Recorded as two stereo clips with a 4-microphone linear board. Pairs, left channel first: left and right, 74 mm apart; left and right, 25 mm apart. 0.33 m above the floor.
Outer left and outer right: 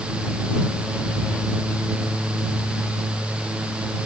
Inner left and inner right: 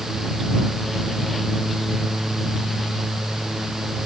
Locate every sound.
Only background noise.